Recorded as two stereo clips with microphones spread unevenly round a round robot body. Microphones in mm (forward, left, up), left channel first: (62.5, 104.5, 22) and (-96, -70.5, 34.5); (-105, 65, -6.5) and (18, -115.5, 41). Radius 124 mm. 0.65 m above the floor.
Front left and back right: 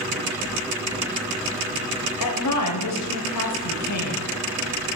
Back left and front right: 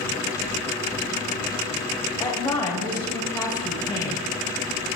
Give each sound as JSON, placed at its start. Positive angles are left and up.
{"t": 2.2, "sound": "a woman speaking", "azimuth_deg": 45, "distance_m": 3.0}